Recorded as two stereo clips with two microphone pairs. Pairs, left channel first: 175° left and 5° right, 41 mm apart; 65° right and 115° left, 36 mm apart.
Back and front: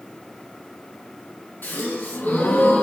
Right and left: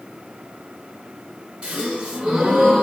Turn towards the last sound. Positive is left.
turn(degrees=165)